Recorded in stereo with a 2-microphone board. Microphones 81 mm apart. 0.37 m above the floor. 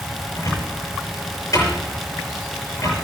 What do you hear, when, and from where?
0.3 s a cupboard door: 45° left (ahead or behind), 6.5 m